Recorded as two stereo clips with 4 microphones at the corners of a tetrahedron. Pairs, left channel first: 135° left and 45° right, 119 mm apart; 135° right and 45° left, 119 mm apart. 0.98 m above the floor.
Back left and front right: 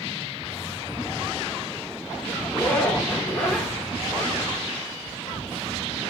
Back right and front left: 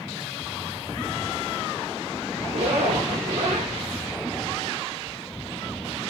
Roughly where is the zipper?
Ahead left.